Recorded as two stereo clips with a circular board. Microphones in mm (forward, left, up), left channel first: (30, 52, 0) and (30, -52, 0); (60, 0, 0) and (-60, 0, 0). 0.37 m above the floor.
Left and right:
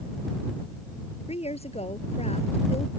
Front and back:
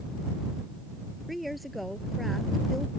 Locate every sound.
1.3 s a woman speaking: 90° left